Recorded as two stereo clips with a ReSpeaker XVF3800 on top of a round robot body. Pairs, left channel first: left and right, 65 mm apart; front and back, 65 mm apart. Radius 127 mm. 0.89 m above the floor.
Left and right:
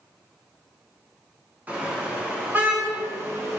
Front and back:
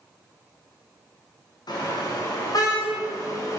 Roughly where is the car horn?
Ahead.